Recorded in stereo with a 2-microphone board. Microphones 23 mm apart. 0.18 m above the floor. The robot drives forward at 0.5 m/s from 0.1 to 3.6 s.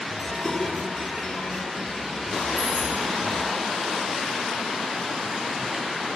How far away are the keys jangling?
About 2 m.